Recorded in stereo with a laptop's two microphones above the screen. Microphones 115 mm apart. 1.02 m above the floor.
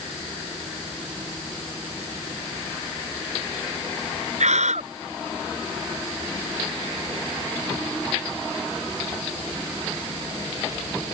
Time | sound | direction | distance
4.4 | a scream | 85° right | ?